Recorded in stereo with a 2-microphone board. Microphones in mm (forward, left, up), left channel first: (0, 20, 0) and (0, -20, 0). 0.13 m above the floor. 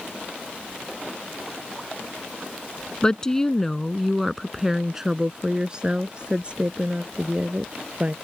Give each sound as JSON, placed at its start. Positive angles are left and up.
{"t": 3.0, "sound": "a woman speaking", "side_deg": 20}